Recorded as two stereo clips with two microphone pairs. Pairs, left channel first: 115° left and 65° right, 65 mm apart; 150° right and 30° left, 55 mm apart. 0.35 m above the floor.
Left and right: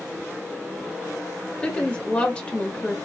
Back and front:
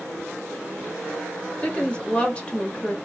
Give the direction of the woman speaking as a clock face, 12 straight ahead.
6 o'clock.